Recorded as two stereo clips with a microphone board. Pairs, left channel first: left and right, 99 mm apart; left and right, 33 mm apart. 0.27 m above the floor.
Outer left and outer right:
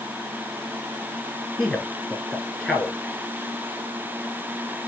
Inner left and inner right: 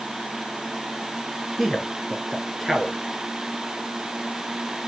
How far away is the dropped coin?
No dropped coin in this recording.